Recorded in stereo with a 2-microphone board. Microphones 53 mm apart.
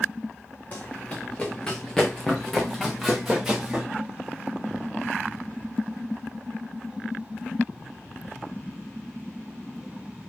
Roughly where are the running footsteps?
Left.